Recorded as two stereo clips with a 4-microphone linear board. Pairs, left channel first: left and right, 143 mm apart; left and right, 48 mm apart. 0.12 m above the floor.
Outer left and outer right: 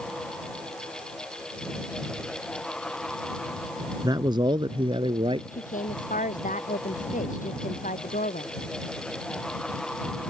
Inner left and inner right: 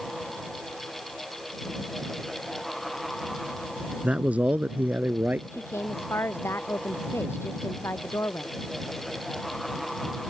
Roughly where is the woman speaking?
Left.